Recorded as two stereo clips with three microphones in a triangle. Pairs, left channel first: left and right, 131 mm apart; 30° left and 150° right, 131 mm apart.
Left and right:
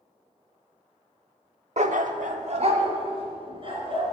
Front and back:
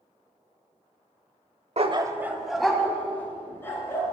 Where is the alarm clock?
No alarm clock in this recording.